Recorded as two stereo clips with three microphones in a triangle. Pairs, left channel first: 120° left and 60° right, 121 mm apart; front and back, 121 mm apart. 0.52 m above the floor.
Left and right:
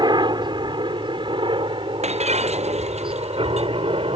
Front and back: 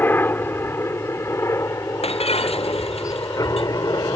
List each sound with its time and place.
0.0 s a helicopter: 65° right; by 4.2 s 50° right
2.0 s breaking glass: 35° right